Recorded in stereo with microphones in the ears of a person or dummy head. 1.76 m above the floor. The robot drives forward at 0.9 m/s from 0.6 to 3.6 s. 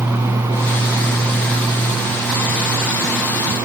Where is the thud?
I don't hear a thud.